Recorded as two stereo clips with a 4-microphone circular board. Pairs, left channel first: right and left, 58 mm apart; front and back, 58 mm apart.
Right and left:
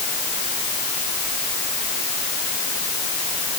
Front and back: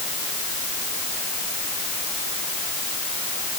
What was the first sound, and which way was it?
Only background noise.